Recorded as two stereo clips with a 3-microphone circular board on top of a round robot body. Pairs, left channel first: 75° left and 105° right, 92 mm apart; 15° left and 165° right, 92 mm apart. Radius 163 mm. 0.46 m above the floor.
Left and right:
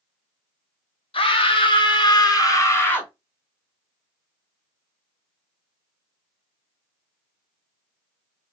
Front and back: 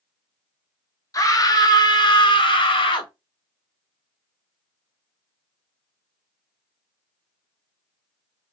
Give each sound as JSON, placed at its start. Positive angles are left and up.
{"t": 1.1, "sound": "a scream", "azimuth_deg": 65, "distance_m": 1.5}